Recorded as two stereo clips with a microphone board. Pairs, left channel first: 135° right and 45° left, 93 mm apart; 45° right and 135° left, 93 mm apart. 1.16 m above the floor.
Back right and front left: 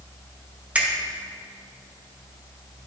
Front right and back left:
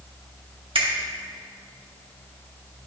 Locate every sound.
0.8 s a finger snap: 120° left, 1.3 m